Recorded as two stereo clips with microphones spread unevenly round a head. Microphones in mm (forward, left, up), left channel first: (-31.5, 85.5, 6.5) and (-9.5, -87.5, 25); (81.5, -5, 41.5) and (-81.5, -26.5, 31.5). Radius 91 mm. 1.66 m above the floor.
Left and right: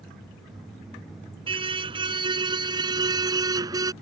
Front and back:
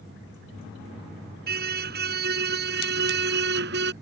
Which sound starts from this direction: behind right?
A car horn, at 1.5 s.